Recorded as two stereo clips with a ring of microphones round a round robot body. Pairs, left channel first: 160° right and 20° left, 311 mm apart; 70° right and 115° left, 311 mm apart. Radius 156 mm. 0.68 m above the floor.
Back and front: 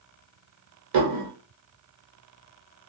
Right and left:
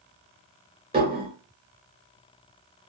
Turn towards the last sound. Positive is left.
turn(degrees=40)